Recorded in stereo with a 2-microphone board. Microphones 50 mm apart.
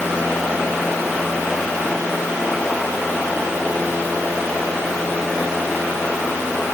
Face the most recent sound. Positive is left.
No sound to turn to.